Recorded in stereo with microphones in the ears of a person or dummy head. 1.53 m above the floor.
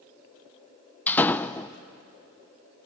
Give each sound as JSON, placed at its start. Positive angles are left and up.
{"t": 1.1, "sound": "a door slam", "side_deg": 10, "distance_m": 0.6}